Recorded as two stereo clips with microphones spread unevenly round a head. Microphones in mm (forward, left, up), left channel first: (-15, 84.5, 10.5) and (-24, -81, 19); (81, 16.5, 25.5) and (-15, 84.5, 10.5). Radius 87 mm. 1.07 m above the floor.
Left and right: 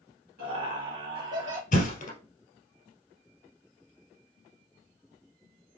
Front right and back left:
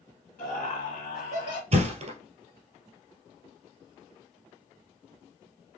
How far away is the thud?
About 1.8 m.